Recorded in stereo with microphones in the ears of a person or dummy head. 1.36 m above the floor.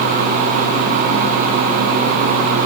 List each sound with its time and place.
Only background noise.